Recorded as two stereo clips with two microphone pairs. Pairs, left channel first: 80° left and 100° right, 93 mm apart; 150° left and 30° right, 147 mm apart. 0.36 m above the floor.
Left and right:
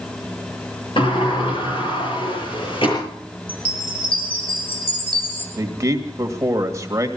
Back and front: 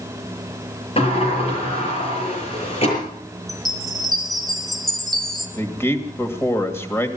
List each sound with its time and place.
1.0 s a sliding door: 105° left, 6.5 m
3.5 s a chime: 60° left, 2.5 m
5.6 s a man speaking: 140° right, 1.8 m